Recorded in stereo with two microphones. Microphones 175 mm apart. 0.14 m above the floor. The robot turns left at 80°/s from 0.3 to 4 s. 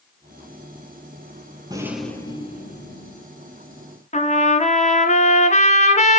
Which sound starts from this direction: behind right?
A rattle, at 1.7 s.